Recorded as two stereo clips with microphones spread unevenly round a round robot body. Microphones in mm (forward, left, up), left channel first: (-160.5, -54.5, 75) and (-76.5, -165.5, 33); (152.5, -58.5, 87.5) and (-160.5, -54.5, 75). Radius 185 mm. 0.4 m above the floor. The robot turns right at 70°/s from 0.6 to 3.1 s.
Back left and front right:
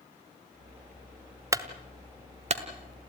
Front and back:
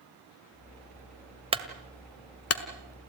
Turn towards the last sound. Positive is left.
turn(degrees=0)